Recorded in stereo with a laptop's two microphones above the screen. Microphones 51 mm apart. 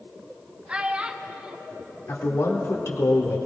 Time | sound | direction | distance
0.7 | a child speaking | 20° right (ahead or behind) | 1.0 m
2.1 | a man speaking | 65° left (ahead or behind) | 2 m